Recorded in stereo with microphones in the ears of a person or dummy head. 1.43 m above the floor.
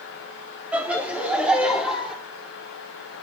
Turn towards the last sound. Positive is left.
turn(degrees=-5)  # may be behind; listen again after turning